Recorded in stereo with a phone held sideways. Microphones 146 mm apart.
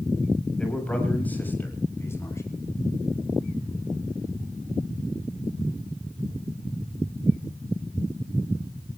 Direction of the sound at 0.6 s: 5° left (ahead or behind).